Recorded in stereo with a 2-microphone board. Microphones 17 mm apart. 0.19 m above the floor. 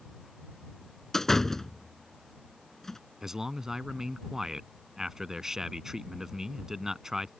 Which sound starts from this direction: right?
A man speaking, at 3.2 s.